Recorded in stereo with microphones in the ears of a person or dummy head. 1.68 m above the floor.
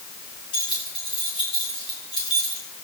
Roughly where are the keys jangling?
Left.